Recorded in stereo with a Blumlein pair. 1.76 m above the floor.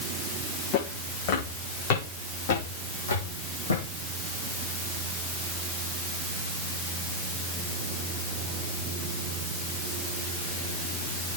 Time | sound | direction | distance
0.7 | footsteps | 40° left | 6 m